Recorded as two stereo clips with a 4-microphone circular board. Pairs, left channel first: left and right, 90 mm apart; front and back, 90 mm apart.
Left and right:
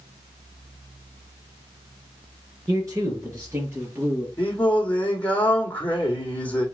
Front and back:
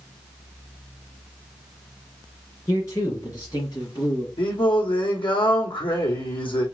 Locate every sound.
2.7 s a man speaking: 50° right, 3 m; by 4.3 s 30° right, 3.5 m
4.4 s singing: 15° left, 2 m